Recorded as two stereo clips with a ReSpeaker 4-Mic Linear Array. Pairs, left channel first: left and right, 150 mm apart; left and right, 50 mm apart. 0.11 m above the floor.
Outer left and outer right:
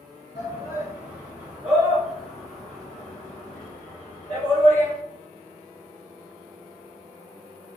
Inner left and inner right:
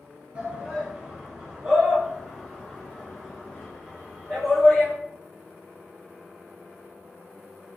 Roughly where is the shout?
Centre.